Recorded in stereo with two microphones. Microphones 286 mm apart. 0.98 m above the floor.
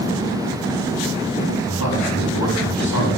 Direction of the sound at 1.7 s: 70° left (ahead or behind).